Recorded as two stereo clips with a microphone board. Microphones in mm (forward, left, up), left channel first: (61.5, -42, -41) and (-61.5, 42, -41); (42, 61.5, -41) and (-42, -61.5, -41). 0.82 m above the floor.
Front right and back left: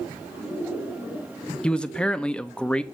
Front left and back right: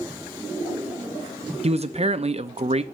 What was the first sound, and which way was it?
A man speaking, 115° right.